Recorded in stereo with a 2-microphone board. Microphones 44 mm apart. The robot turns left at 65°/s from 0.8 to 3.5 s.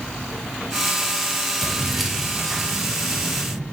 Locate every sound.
1.6 s keys jangling: 5° left (ahead or behind), 0.9 m; by 3.6 s 20° right (ahead or behind), 0.9 m